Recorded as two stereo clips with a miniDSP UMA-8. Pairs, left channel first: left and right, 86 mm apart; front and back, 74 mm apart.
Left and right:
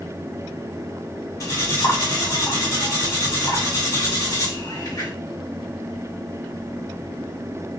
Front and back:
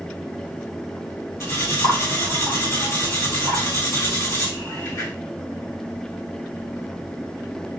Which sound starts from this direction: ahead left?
Cutlery clinking, at 1.4 s.